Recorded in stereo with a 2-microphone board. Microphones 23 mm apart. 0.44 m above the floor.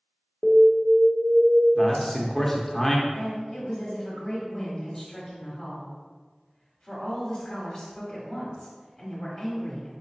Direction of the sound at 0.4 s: 20° left (ahead or behind).